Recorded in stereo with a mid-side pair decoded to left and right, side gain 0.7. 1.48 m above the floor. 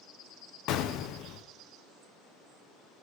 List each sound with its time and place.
0.7 s an explosion: 60° left, 0.9 m